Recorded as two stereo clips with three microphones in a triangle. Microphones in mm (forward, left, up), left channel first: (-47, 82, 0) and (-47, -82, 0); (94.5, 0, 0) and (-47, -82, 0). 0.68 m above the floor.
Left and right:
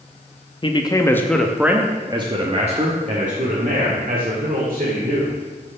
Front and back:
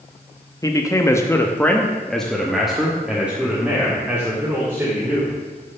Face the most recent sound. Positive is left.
turn(degrees=-70)